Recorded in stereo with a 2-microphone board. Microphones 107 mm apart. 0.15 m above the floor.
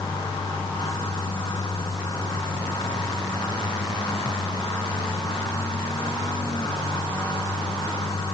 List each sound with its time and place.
Only background noise.